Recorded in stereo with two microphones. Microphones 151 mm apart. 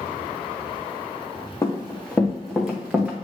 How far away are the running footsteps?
About 1.4 m.